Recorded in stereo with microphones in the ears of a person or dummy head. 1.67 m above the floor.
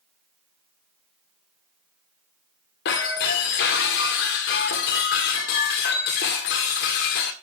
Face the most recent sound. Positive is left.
turn(degrees=45)  # may be behind; listen again after turning